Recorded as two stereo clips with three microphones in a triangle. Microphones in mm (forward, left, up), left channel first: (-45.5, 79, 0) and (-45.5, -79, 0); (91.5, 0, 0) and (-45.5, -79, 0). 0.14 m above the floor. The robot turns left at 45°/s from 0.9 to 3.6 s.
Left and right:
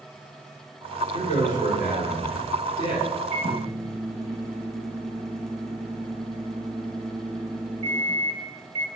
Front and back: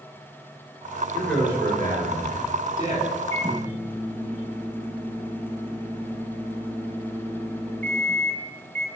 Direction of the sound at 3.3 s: 25° right.